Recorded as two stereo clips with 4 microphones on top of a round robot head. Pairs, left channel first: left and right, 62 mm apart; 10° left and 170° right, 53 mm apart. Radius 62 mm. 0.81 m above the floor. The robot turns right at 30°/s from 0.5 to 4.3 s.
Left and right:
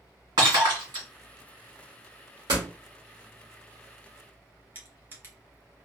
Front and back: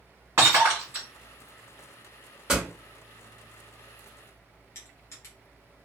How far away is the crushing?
About 1.1 m.